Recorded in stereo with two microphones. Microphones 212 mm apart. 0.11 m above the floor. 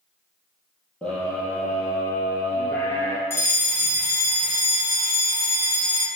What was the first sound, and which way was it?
A scream, 5° left (ahead or behind).